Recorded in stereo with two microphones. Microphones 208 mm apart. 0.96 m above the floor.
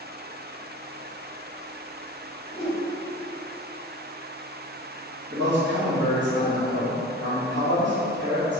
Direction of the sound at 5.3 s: 60° right (ahead or behind).